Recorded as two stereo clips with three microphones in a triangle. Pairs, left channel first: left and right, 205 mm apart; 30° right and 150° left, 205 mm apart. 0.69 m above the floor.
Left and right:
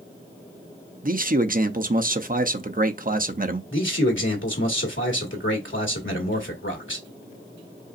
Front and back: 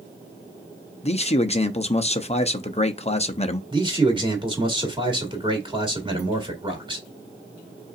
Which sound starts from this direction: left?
A man speaking, at 3.7 s.